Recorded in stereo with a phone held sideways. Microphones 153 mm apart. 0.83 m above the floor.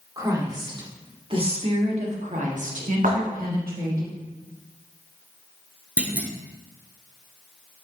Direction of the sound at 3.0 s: 65° right (ahead or behind).